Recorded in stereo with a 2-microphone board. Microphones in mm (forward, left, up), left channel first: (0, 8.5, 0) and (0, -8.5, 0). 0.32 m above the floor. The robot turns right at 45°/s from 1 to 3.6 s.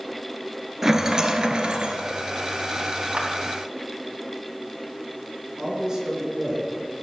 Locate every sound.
0.8 s a rattle: 155° right, 1.1 m; by 2.0 s 110° right, 1.1 m
3.1 s a clap: 65° right (ahead or behind), 2 m; by 3.3 s 60° right (ahead or behind), 2 m
5.6 s a man speaking: 40° right (ahead or behind), 4 m